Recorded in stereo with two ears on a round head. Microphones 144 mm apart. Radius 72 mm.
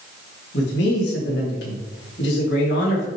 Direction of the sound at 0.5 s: 70° left (ahead or behind).